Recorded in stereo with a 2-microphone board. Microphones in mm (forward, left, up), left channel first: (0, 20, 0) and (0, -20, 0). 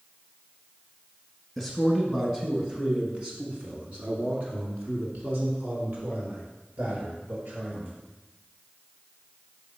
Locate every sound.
1.6 s a man speaking: centre (ahead or behind), 1.8 m; by 7.9 s 60° right (ahead or behind), 3.5 m